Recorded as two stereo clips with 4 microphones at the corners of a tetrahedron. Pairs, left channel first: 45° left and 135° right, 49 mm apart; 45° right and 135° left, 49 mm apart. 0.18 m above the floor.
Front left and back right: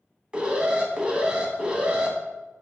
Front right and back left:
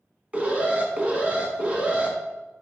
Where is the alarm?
170° left, 1.6 m.